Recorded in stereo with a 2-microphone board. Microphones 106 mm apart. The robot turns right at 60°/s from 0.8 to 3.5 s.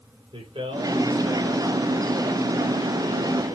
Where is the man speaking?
50° right, 7 m; by 3.6 s 110° left, 7 m.